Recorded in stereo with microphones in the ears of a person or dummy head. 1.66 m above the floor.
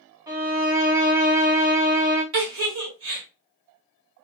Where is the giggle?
70° right (ahead or behind), 1.5 m.